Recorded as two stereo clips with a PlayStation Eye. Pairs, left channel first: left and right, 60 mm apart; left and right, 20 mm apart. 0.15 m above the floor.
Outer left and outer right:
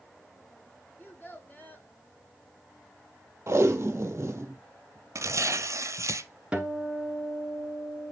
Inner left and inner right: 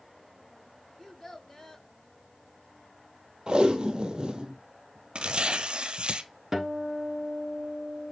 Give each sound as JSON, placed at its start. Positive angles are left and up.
{"t": 1.0, "sound": "a child speaking", "side_deg": 35, "distance_m": 1.2}
{"t": 3.5, "sound": "tape being pulled", "side_deg": -45, "distance_m": 1.0}
{"t": 5.2, "sound": "tearing paper", "side_deg": -70, "distance_m": 0.5}
{"t": 6.5, "sound": "a guitar", "side_deg": -15, "distance_m": 1.2}